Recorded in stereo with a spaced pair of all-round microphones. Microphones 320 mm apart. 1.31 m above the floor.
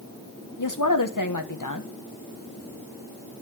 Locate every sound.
0.6 s a woman speaking: 75° left (ahead or behind), 1.2 m